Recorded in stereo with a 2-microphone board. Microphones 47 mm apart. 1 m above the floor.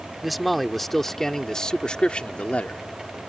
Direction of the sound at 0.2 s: Centre (ahead or behind).